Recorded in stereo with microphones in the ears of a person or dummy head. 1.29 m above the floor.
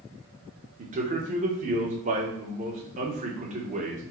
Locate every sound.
0.8 s a man speaking: 35° right (ahead or behind), 1.1 m